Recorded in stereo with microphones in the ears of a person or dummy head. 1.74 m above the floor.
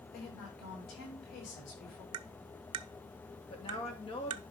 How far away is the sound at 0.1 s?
About 6.5 m.